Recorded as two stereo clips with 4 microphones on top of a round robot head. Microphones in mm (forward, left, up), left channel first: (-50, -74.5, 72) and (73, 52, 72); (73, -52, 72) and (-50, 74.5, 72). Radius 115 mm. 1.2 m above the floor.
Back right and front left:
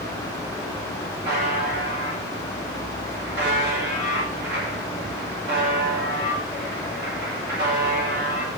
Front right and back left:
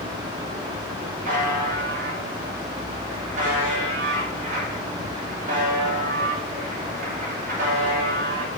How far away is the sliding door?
No sliding door in this recording.